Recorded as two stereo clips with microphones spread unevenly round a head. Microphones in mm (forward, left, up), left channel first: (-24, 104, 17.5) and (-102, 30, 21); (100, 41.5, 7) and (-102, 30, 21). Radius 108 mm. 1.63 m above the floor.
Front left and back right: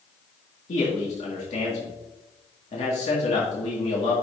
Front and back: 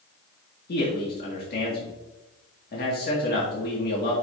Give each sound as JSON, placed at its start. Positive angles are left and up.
{"t": 0.7, "sound": "a man speaking", "azimuth_deg": 45, "distance_m": 2.0}